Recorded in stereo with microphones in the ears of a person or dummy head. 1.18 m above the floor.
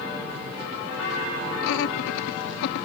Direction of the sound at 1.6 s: 80° left.